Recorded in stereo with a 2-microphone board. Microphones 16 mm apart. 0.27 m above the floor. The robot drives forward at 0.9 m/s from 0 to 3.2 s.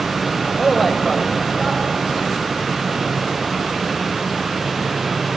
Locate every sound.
0.6 s a man speaking: 5° left (ahead or behind), 1.0 m